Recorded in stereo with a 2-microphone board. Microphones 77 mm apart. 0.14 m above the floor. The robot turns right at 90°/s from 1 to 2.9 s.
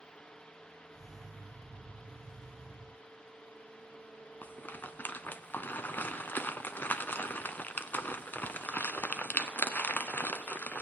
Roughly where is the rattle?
Left.